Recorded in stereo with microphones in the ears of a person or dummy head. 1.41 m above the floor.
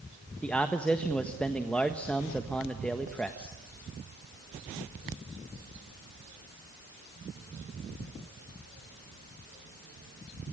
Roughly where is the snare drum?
No snare drum in this recording.